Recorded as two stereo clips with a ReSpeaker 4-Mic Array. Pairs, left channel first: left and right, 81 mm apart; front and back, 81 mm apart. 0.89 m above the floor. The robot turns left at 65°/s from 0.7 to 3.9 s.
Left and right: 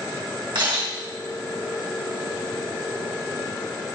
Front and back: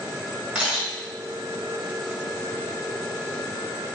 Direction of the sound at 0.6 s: 100° right.